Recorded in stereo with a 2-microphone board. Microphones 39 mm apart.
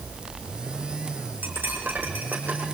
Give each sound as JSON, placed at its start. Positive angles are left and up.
{"t": 1.4, "sound": "cutlery clinking", "side_deg": -50, "distance_m": 5.0}